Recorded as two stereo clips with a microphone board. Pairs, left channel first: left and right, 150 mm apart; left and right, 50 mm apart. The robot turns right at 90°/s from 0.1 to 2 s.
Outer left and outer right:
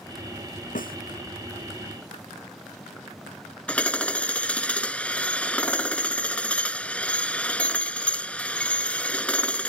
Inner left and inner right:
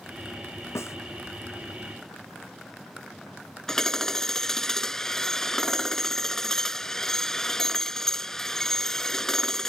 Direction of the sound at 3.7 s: 10° left (ahead or behind).